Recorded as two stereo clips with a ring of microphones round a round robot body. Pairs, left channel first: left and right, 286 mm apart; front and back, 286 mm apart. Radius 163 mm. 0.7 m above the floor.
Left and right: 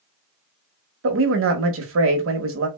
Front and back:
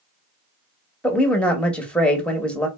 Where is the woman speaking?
85° right, 1.0 m.